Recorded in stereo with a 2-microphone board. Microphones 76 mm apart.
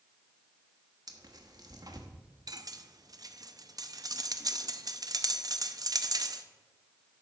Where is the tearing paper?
55° right (ahead or behind), 1.1 m.